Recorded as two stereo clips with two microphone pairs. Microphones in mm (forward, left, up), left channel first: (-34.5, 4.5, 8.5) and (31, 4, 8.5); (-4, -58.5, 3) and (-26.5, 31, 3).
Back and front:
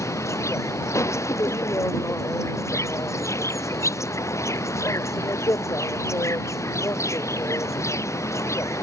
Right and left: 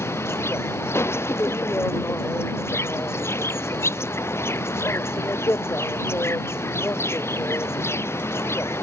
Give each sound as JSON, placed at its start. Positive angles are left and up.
{"t": 0.0, "sound": "an insect", "azimuth_deg": -140}